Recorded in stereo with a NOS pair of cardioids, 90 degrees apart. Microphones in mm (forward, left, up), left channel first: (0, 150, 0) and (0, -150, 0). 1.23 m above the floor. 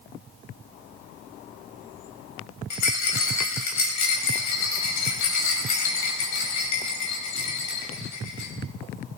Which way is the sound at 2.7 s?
70° left.